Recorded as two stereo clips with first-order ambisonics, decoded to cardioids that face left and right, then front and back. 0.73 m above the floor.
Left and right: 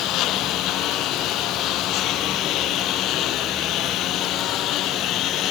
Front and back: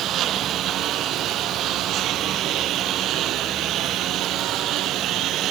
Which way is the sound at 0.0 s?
130° left.